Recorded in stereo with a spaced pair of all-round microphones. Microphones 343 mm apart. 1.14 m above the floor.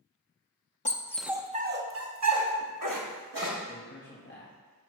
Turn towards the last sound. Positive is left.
turn(degrees=30)  # may be behind; listen again after turning